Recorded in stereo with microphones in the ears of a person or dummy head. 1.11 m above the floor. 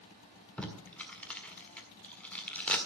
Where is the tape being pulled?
15° left (ahead or behind), 1.8 m.